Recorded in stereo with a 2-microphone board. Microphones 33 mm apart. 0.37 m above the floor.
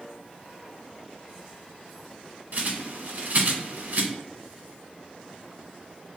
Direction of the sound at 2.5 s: 55° right (ahead or behind).